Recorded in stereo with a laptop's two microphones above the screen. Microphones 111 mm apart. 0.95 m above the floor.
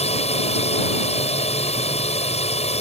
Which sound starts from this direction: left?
A drone, at 0.0 s.